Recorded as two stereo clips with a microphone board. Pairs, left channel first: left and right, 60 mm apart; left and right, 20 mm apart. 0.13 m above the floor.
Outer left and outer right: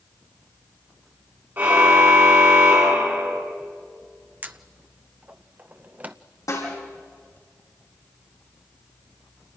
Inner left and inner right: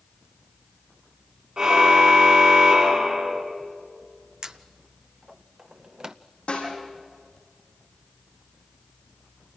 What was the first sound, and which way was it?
A car horn, 35° right (ahead or behind).